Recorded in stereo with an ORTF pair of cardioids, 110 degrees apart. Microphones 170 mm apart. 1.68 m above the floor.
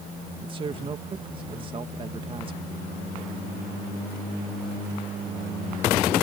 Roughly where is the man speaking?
Ahead right.